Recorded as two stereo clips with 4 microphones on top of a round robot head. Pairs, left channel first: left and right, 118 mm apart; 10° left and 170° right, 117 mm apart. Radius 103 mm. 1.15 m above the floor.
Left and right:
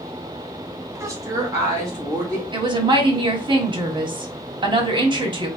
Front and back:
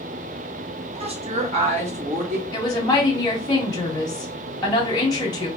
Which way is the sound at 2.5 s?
45° right.